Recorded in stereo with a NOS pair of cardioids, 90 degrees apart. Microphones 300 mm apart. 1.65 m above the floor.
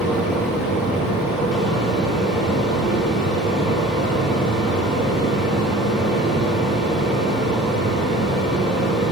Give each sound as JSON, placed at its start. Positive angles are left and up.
{"t": 0.0, "sound": "a fan", "azimuth_deg": 0, "distance_m": 1.1}